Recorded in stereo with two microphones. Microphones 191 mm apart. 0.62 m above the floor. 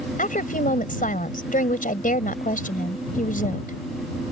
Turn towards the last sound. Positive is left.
turn(degrees=45)  # may be behind; listen again after turning